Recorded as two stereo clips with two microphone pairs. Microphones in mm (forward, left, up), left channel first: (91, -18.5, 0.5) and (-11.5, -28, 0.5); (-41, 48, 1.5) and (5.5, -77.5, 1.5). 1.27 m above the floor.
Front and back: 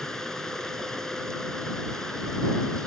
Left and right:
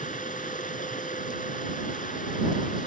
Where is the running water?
90° left.